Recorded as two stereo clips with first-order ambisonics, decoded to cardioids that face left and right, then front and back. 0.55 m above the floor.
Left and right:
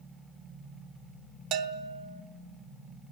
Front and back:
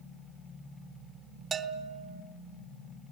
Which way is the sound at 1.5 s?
115° right.